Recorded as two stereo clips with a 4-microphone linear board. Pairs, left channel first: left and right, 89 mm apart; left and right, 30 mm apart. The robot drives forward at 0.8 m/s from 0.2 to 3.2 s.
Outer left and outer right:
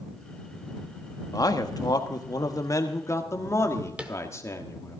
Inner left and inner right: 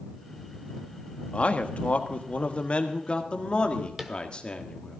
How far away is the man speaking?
About 1.3 m.